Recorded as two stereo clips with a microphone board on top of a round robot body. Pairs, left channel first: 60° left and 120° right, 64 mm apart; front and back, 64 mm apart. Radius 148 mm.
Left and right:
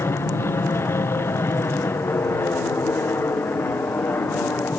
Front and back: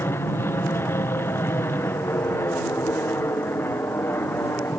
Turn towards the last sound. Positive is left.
turn(degrees=25)